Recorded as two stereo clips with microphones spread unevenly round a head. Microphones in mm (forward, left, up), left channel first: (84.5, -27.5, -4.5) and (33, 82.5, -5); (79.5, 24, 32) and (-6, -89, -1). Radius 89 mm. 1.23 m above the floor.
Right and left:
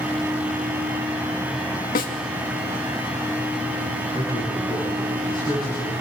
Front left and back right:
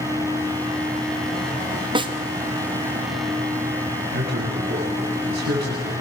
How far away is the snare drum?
About 2.5 m.